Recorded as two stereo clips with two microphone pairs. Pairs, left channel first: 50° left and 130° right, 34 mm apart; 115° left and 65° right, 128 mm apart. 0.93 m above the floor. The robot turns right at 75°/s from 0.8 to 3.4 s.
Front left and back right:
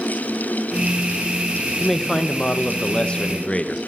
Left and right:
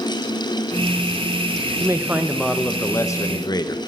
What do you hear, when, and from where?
1.8 s a man speaking: 25° right, 0.9 m; by 3.8 s 95° left, 0.9 m